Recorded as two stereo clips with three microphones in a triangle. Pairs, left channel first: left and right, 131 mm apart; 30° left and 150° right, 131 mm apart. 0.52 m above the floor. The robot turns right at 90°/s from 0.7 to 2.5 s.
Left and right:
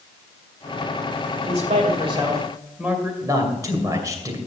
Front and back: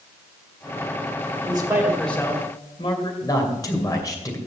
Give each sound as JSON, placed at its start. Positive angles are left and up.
{"t": 1.4, "sound": "a man speaking", "azimuth_deg": -110, "distance_m": 2.0}
{"t": 3.2, "sound": "a man speaking", "azimuth_deg": -30, "distance_m": 2.5}